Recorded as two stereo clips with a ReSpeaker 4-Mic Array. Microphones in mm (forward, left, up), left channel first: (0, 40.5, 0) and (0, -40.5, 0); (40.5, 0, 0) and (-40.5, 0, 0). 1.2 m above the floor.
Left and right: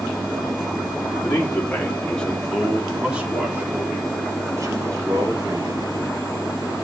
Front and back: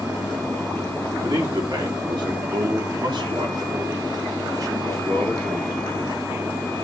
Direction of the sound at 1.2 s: 150° left.